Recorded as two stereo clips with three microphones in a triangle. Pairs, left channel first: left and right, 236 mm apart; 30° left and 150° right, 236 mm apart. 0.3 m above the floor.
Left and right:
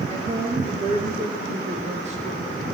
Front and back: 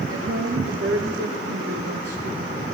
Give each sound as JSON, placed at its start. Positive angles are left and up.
{"t": 0.1, "sound": "a woman speaking", "azimuth_deg": -155, "distance_m": 6.0}